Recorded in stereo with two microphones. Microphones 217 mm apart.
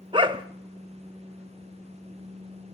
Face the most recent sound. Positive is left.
turn(degrees=-20)  # may be behind; listen again after turning